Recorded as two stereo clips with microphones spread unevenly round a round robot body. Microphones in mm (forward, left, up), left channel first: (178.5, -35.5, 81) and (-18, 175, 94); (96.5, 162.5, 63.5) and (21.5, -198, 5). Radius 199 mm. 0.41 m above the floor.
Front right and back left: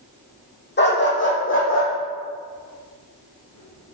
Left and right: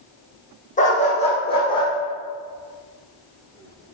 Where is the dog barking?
10° left, 6 m; by 4.0 s 10° right, 10 m.